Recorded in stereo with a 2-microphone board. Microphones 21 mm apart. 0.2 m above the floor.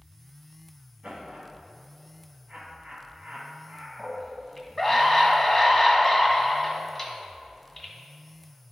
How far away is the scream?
About 1.5 m.